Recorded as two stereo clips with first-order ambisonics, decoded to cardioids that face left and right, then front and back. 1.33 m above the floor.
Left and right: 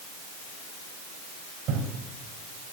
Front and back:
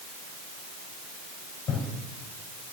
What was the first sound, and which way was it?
Breathing, 55° right.